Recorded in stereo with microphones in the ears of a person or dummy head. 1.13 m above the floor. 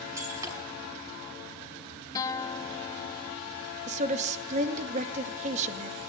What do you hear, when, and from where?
0.2 s breaking glass: 20° right (ahead or behind), 5.5 m
2.1 s a guitar: 15° left (ahead or behind), 1.1 m
3.9 s a woman speaking: 40° right (ahead or behind), 1.6 m